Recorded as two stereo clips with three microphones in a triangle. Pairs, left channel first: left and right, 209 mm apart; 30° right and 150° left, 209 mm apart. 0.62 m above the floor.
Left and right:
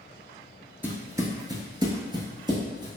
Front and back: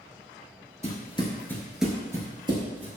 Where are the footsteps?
15° right, 0.6 m; by 2.9 s 155° right, 1.0 m.